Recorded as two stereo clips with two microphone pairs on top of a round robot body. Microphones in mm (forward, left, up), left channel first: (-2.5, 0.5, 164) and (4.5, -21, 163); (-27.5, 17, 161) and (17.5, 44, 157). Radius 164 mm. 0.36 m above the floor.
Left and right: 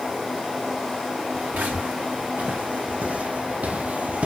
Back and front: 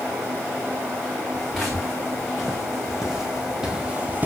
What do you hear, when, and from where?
1.3 s footsteps: 60° right, 3.5 m; by 4.3 s 30° right, 0.7 m